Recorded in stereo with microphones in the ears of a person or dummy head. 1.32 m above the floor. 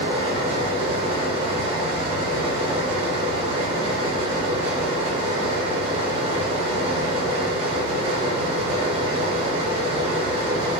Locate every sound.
0.0 s a fan: 30° right (ahead or behind), 0.8 m